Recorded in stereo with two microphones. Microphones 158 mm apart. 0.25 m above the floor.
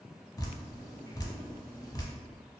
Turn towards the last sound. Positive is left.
turn(degrees=25)  # may be behind; listen again after turning